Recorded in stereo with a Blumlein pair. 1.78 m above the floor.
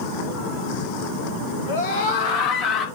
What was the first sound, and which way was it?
A scream, 65° left.